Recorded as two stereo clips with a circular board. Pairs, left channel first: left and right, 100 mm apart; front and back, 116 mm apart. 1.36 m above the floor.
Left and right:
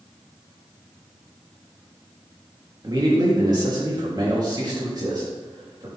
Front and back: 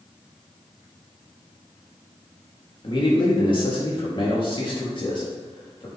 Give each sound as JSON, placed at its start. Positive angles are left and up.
{"t": 2.8, "sound": "a man speaking", "azimuth_deg": -45, "distance_m": 2.5}